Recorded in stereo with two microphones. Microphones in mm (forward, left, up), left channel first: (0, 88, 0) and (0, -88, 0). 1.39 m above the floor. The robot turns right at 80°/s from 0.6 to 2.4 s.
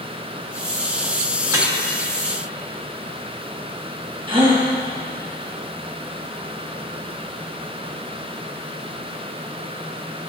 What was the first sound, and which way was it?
Dripping, 10° right (ahead or behind).